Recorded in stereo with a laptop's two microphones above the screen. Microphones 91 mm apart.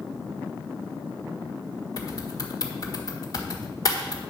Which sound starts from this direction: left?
Typing on a keyboard, at 2.0 s.